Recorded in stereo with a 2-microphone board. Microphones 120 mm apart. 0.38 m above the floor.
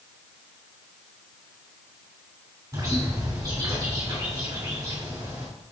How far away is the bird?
About 3 m.